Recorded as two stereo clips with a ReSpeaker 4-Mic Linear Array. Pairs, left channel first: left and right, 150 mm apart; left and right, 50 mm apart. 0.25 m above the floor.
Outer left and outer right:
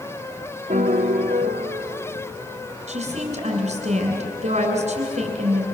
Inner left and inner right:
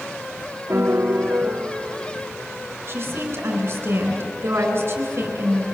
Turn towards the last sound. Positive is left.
turn(degrees=-50)  # may be behind; listen again after turning